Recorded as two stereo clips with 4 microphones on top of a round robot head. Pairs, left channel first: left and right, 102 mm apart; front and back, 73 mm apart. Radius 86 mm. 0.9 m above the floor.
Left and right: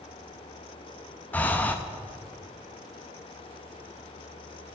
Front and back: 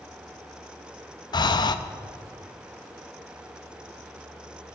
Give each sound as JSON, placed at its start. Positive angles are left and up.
{"t": 1.3, "sound": "breathing", "azimuth_deg": 15, "distance_m": 0.7}